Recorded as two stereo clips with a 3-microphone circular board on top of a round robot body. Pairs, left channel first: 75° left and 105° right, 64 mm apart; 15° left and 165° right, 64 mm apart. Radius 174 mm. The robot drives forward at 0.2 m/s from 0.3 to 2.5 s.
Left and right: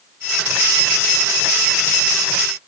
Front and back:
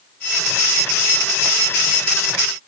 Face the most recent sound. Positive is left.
No sound to turn to.